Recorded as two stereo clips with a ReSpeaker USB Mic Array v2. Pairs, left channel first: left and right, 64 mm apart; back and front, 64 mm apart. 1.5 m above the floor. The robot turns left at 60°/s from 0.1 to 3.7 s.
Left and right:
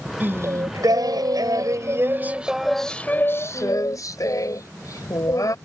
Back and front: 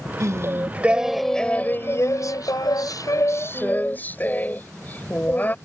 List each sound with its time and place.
0.2 s singing: 30° right; by 5.5 s 120° left